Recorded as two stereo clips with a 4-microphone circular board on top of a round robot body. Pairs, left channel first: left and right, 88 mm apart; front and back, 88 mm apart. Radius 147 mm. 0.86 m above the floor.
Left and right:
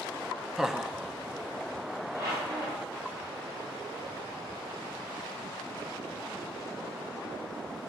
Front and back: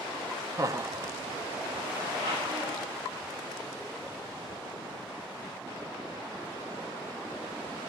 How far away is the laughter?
About 0.6 m.